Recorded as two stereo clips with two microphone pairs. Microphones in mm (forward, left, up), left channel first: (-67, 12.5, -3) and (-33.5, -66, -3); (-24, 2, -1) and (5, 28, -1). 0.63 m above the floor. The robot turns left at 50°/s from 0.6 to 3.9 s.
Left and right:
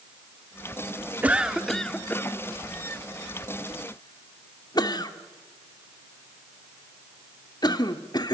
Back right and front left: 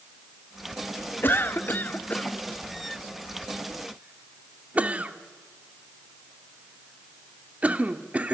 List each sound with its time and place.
1.2 s a cough: 135° right, 1.5 m; by 8.3 s 90° left, 1.5 m